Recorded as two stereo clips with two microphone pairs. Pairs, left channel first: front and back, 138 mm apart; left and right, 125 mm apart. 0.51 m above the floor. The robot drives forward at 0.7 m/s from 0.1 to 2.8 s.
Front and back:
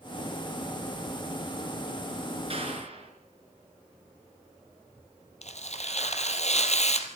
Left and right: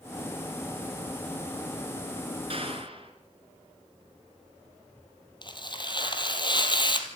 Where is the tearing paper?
35° left, 2.5 m.